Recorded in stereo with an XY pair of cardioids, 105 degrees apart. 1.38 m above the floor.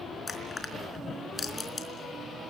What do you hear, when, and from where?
0.3 s crushing: 30° left, 4 m